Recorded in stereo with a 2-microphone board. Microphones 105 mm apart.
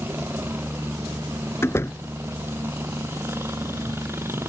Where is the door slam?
25° left (ahead or behind).